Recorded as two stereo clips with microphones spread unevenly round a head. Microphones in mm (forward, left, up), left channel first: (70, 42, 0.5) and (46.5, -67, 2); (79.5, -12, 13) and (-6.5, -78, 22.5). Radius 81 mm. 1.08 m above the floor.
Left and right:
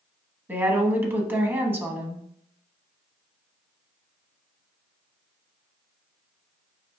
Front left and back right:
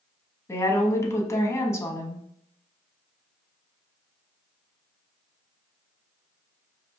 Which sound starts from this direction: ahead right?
A woman speaking, at 0.5 s.